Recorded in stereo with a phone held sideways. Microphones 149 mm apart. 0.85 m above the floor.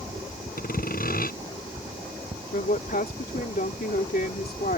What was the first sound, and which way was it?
Sawing, 70° left (ahead or behind).